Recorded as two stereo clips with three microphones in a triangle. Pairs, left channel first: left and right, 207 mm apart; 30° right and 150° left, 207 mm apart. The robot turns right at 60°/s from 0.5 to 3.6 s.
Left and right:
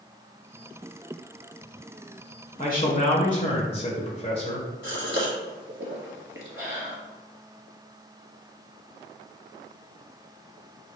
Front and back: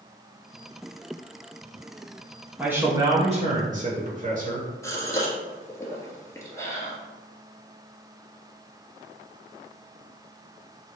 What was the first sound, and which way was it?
A man speaking, 70° left.